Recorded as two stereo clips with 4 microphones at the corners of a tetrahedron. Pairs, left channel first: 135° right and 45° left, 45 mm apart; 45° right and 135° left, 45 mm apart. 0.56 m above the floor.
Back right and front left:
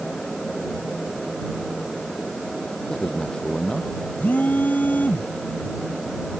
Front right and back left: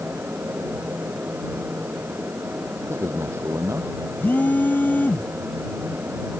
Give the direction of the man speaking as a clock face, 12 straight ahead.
7 o'clock.